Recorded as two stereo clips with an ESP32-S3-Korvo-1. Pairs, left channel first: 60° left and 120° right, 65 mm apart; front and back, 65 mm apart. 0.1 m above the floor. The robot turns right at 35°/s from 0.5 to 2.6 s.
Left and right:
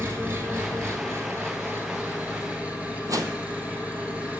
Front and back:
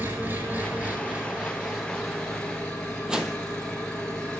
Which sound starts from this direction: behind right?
An engine running, at 0.0 s.